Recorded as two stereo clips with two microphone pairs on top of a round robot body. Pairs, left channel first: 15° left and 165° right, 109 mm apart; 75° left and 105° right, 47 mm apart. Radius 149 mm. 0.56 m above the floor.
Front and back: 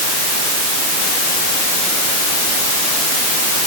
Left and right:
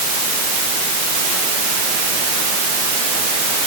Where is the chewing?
No chewing in this recording.